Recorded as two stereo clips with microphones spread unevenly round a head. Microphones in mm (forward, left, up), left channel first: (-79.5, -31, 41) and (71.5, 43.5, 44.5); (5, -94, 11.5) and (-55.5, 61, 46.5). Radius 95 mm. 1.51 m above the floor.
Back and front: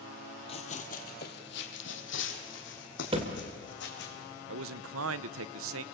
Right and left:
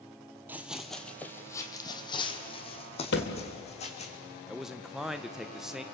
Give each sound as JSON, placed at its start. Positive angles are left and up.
{"t": 0.5, "sound": "running footsteps", "azimuth_deg": 165, "distance_m": 1.8}
{"t": 3.1, "sound": "a thud", "azimuth_deg": -30, "distance_m": 2.0}
{"t": 4.5, "sound": "a man speaking", "azimuth_deg": 30, "distance_m": 0.8}